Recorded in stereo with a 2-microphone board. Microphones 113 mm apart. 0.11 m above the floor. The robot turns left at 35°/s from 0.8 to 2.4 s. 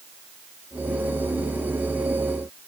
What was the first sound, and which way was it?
Only background noise.